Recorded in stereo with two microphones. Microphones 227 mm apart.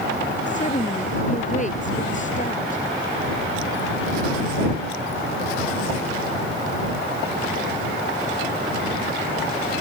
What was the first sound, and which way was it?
A woman speaking, 35° left (ahead or behind).